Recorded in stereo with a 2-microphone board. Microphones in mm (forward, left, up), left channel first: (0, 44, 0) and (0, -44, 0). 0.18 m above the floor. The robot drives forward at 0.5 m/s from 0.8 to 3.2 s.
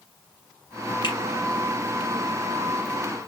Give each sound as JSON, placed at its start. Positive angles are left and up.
{"t": 1.0, "sound": "a finger snap", "side_deg": 60, "distance_m": 3.5}